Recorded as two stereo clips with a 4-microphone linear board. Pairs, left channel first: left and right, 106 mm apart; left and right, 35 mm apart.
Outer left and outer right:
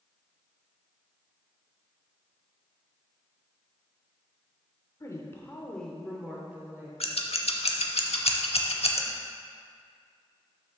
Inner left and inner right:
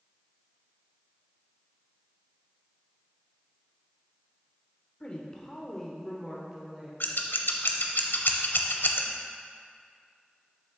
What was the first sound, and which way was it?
A woman speaking, 30° left (ahead or behind).